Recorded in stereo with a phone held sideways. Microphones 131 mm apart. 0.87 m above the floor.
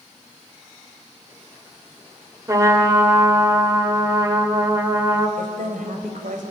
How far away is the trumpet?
About 1.9 m.